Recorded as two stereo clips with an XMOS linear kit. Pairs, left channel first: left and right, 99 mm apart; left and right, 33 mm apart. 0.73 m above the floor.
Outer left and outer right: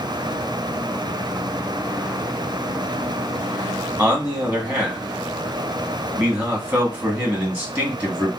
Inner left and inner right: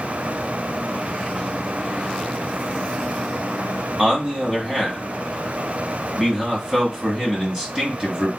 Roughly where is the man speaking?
Centre.